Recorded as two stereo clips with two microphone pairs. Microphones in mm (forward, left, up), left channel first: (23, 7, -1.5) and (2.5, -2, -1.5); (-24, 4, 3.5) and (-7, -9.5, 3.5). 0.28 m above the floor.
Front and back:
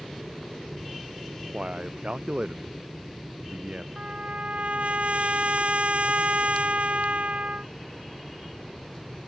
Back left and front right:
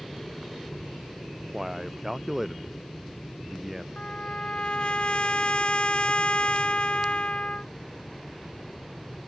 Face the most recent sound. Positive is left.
turn(degrees=175)